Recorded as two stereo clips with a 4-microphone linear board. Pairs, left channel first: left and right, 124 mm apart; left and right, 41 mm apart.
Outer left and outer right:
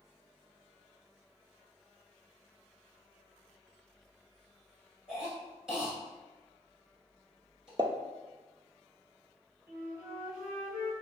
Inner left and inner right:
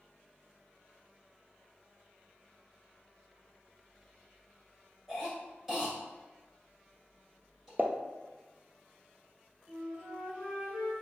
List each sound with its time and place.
5.1 s a cough: 5° right (ahead or behind), 1.6 m
7.8 s a pop: 40° right (ahead or behind), 0.6 m
9.7 s a flute: 20° right (ahead or behind), 1.9 m